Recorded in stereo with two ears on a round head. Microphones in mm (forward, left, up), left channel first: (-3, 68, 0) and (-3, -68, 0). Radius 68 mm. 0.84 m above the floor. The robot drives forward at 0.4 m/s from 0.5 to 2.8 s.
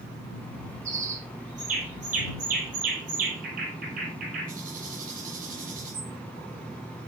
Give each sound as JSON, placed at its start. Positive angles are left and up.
{"t": 0.8, "sound": "a bird", "side_deg": -50, "distance_m": 5.5}